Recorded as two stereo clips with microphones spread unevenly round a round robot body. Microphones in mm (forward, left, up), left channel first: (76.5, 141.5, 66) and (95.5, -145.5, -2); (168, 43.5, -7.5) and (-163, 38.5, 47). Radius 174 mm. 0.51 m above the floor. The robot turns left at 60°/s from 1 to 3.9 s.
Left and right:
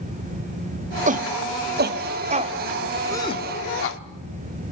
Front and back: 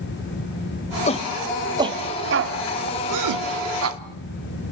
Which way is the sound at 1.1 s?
50° right.